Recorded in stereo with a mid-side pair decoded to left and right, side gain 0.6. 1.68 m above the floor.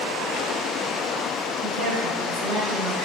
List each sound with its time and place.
1.6 s a woman speaking: 65° right, 1.5 m; by 3.0 s 5° right, 1.7 m